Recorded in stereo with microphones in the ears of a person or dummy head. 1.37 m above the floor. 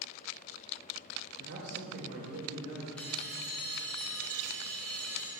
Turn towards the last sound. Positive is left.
turn(degrees=10)  # may be behind; listen again after turning